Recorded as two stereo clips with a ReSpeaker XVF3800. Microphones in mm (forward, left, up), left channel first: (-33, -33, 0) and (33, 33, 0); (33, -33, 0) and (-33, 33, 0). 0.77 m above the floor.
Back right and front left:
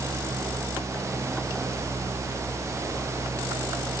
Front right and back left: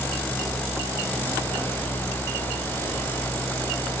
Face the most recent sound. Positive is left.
No sound to turn to.